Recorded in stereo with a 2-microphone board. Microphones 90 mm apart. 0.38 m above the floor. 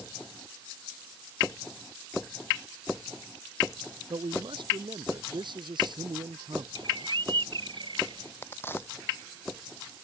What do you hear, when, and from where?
4.1 s a man speaking: 60° right (ahead or behind); by 6.7 s 55° right (ahead or behind)
6.8 s a bird: 60° right (ahead or behind)
8.4 s a crack: 25° left (ahead or behind)